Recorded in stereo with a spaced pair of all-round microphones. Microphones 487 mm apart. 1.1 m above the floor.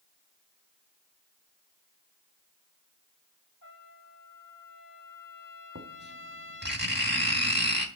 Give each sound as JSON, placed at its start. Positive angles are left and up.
{"t": 3.6, "sound": "a trumpet", "side_deg": 40, "distance_m": 3.5}
{"t": 5.8, "sound": "writing", "side_deg": -20, "distance_m": 3.5}